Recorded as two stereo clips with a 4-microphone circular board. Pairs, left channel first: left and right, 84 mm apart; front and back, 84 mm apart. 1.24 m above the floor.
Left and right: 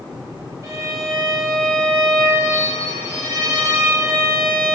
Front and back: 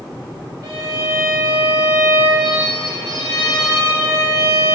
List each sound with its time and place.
0.6 s a violin: 140° right, 3 m